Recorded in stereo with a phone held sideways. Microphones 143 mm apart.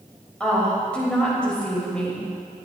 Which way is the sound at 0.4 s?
10° left (ahead or behind).